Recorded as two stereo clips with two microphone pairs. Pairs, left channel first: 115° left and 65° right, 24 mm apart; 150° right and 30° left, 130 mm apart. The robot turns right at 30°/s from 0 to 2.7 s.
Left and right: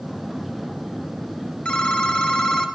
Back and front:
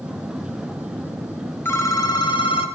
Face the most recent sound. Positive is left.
turn(degrees=170)